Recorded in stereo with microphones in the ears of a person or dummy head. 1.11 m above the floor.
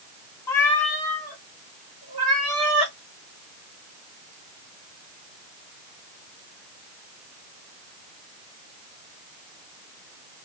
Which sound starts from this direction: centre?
A cat meowing, at 0.5 s.